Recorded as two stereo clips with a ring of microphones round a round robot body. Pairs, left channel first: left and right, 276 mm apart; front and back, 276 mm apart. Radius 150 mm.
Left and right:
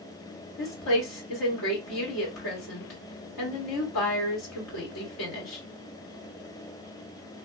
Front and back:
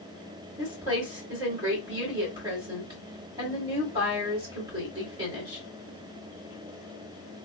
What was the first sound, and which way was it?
A woman speaking, 105° left.